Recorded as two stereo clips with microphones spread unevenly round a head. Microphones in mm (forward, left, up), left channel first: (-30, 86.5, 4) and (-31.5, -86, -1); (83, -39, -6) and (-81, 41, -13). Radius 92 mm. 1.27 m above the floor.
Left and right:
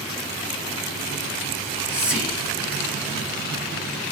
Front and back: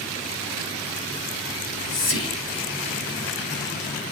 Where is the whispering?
5° right, 2.5 m.